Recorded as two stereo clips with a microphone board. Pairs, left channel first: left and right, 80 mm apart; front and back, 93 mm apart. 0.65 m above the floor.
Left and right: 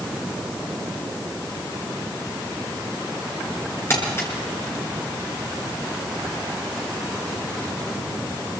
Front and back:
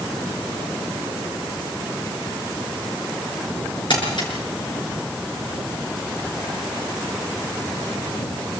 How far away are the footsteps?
I don't hear footsteps.